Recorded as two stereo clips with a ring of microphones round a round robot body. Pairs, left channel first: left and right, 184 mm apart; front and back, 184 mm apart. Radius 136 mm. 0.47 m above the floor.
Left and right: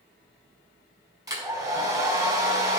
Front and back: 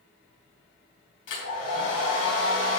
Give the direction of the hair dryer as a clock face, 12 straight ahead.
1 o'clock.